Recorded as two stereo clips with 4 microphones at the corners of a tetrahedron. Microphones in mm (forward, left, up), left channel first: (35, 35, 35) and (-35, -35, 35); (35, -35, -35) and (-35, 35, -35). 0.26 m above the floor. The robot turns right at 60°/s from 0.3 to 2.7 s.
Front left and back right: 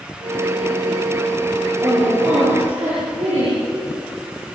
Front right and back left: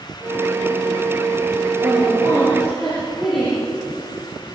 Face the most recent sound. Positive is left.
turn(degrees=-135)